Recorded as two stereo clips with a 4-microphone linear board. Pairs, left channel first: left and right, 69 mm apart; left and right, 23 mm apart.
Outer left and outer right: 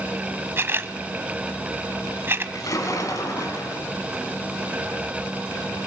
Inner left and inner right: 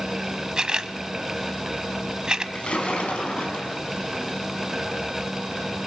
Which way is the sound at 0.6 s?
35° right (ahead or behind).